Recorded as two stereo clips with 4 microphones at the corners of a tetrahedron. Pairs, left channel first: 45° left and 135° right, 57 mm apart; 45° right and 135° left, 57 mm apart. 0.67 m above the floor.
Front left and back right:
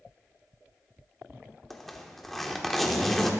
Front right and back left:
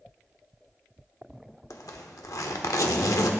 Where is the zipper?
40° right, 1.1 m.